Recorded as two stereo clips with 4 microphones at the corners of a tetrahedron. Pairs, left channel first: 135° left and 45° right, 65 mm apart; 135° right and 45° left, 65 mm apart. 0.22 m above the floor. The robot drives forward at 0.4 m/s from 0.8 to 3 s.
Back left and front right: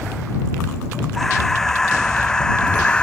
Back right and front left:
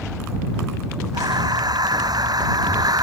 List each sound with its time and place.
1.1 s breathing: 50° left; by 3.0 s 60° left